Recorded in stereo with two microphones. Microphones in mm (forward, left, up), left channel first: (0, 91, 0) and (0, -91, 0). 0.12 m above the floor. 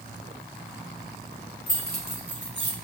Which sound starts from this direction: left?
Keys jangling, at 1.7 s.